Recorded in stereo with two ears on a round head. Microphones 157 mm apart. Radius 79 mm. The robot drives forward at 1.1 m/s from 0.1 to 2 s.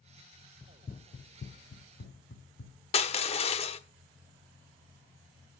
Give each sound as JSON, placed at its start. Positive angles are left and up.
{"t": 0.6, "sound": "running footsteps", "side_deg": 10, "distance_m": 0.7}
{"t": 2.9, "sound": "crushing", "side_deg": 35, "distance_m": 0.9}